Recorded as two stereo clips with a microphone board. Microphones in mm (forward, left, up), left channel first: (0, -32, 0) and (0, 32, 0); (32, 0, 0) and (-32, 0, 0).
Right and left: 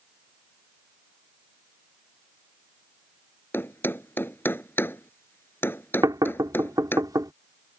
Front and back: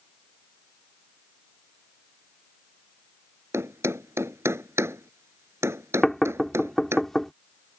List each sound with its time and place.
3.5 s a thud: 140° right
6.0 s knocking: 85° left